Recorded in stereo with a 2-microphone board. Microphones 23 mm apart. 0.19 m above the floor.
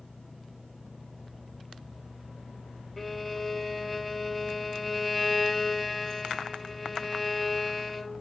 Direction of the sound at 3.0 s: 5° left (ahead or behind).